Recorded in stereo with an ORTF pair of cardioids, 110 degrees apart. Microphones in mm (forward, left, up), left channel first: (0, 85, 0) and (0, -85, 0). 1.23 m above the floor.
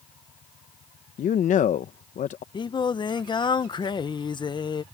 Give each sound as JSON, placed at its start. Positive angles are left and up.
{"t": 1.2, "sound": "a man speaking", "azimuth_deg": 50}
{"t": 2.5, "sound": "singing", "azimuth_deg": 30}